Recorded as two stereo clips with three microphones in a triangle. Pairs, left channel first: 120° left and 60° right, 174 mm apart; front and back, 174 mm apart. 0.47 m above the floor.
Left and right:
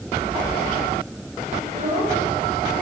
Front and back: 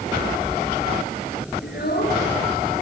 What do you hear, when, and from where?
1.6 s a child speaking: 15° right, 6.5 m